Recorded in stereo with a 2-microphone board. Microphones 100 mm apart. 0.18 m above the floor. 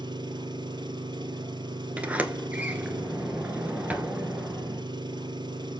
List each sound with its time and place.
0.0 s an engine running: 50° right (ahead or behind), 1.1 m
2.0 s a sliding door: 15° right (ahead or behind), 0.9 m